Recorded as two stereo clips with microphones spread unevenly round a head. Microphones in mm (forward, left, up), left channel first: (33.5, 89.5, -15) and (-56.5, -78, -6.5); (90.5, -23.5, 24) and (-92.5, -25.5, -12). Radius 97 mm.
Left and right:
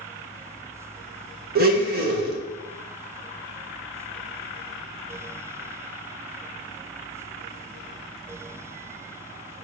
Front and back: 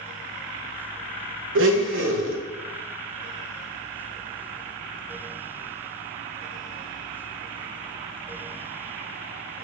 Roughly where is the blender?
Behind.